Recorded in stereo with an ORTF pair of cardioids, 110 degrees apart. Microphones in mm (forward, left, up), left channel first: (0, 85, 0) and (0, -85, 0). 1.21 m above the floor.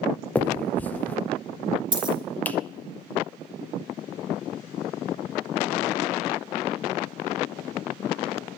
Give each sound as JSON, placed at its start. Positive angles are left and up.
{"t": 0.3, "sound": "a finger snap", "azimuth_deg": 10, "distance_m": 0.7}
{"t": 1.9, "sound": "a dropped coin", "azimuth_deg": -25, "distance_m": 1.8}